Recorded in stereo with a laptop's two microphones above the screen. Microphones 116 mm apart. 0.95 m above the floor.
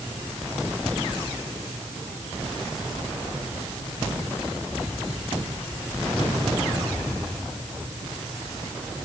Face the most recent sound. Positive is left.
No sound to turn to.